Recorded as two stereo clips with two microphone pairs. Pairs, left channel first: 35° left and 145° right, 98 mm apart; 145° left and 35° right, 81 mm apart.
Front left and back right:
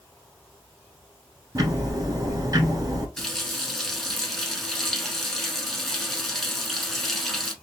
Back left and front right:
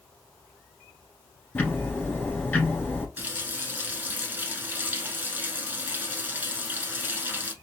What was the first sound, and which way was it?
Ticking, 160° right.